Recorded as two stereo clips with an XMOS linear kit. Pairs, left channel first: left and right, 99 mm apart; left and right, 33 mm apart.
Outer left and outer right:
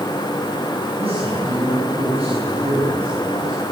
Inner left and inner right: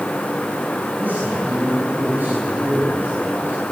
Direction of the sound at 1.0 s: 75° right (ahead or behind).